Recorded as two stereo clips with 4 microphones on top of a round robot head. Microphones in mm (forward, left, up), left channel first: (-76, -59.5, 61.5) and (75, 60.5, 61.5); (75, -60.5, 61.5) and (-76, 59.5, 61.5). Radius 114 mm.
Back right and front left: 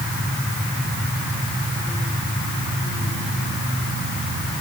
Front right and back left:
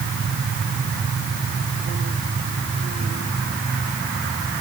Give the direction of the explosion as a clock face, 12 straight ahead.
No explosion in this recording.